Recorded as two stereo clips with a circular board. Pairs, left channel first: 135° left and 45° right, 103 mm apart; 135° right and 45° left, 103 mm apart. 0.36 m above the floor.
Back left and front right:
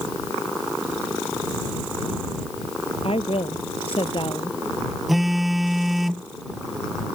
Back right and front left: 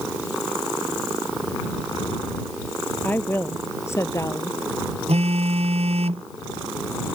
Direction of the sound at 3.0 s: 155° left.